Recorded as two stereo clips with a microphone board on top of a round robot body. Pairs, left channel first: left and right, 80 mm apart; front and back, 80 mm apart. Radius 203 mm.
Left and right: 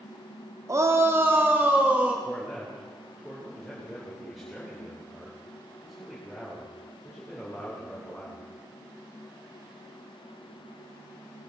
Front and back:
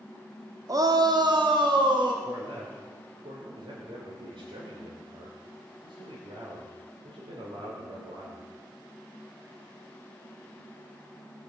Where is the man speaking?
Straight behind, 3 m.